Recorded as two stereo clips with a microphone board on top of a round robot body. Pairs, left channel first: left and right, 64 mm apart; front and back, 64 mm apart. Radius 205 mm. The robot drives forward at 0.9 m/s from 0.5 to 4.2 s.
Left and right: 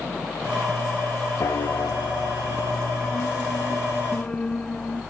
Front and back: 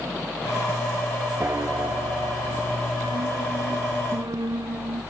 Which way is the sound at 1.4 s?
125° left.